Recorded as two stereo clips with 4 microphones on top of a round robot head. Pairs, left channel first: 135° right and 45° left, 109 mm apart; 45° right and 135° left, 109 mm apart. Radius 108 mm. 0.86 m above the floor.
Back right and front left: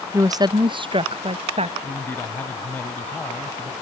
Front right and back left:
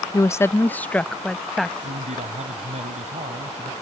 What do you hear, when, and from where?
0.1 s a woman speaking: straight ahead; by 1.7 s 45° left
1.8 s a man speaking: 150° left